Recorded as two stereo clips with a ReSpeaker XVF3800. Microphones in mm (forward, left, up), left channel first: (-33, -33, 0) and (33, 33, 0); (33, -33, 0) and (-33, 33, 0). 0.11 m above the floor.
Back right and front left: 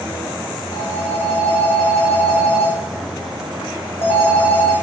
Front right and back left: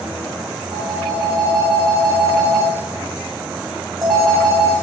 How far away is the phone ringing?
About 4.5 m.